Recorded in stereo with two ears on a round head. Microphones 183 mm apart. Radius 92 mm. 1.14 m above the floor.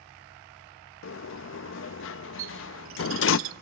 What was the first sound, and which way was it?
A sliding door, 70° left (ahead or behind).